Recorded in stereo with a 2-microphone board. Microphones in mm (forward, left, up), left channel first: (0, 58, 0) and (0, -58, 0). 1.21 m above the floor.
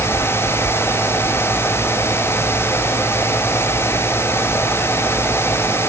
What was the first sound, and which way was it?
Only background noise.